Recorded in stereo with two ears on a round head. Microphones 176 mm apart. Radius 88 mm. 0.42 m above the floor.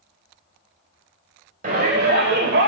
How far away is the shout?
About 1.7 m.